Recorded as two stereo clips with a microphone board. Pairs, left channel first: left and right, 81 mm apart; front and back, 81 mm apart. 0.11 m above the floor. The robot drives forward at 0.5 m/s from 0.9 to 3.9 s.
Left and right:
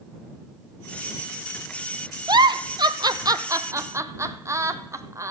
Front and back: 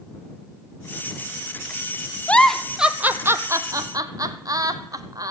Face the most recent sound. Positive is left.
turn(degrees=-140)